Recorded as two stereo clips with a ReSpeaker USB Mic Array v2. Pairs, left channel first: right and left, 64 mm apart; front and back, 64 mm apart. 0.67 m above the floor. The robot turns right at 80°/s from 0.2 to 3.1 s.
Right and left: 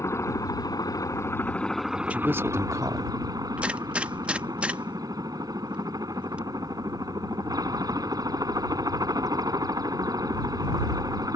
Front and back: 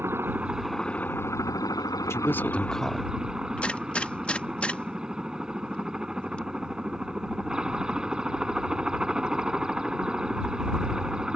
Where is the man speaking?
25° left; by 3.1 s 105° left.